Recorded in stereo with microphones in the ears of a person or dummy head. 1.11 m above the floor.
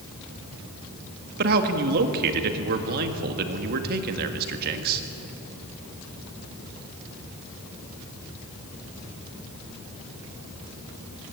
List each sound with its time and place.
1.4 s a man speaking: 55° right (ahead or behind), 1.9 m